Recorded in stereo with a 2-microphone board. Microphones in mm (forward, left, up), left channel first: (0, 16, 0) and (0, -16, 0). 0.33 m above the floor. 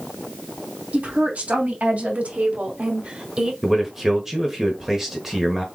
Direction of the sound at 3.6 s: 10° right (ahead or behind).